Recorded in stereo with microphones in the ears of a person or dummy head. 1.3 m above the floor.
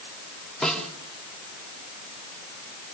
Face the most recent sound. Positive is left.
turn(degrees=0)  # may be behind; listen again after turning